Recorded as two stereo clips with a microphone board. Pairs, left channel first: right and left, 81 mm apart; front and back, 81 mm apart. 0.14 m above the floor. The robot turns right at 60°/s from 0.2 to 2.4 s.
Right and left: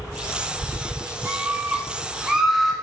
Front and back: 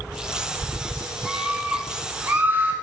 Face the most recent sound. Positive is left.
turn(degrees=170)